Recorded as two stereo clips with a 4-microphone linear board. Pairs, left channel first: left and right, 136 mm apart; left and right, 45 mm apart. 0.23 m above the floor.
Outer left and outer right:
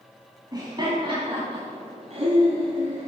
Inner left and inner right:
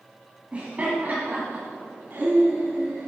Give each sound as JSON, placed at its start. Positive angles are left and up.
{"t": 0.5, "sound": "laughter", "side_deg": -30, "distance_m": 2.0}